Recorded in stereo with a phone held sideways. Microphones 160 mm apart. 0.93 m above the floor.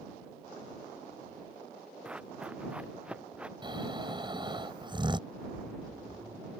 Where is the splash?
30° right (ahead or behind).